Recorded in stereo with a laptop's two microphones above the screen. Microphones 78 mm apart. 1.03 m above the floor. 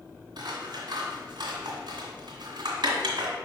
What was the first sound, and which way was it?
Scissors, 70° right (ahead or behind).